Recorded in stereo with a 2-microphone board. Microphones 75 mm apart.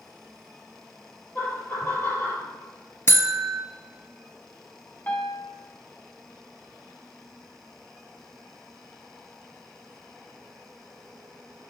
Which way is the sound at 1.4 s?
20° left (ahead or behind).